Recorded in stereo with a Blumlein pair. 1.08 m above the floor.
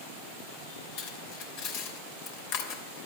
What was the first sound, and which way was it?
Cutlery clinking, 45° left.